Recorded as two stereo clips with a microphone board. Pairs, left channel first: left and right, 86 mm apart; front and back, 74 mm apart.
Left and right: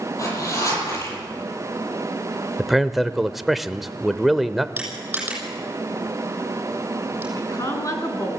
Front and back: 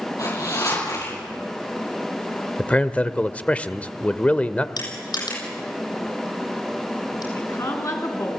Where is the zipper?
40° left, 9 m.